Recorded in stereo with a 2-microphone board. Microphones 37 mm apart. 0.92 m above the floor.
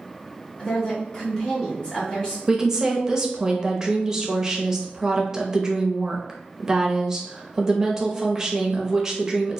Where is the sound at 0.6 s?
25° left (ahead or behind), 1.3 m.